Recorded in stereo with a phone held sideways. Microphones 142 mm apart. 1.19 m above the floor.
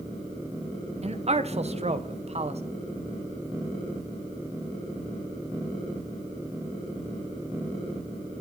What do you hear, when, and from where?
1.0 s a man speaking: 50° right (ahead or behind), 0.8 m